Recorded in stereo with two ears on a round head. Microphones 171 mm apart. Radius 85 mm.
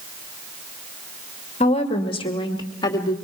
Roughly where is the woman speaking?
Left.